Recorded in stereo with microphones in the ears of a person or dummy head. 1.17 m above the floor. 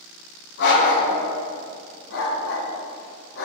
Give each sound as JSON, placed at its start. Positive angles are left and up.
{"t": 0.6, "sound": "a dog barking", "side_deg": 70, "distance_m": 3.5}